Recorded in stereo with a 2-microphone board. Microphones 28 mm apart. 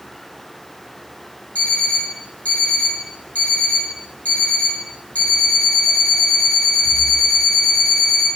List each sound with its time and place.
1.6 s an alarm clock: 65° left (ahead or behind), 2 m